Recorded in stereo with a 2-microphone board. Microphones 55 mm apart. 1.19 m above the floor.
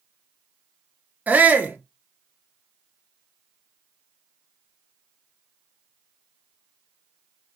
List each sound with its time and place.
1.3 s a shout: 25° right (ahead or behind), 0.9 m